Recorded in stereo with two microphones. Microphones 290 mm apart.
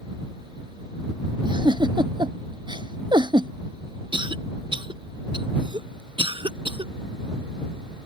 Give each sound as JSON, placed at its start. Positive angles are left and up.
{"t": 1.4, "sound": "a giggle", "side_deg": -15}
{"t": 4.1, "sound": "a cough", "side_deg": -15}